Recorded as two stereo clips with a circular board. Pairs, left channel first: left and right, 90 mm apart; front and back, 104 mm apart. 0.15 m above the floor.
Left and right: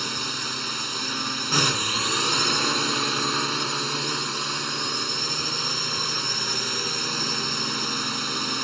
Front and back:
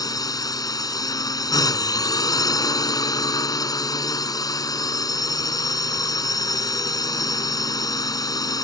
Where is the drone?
Straight ahead.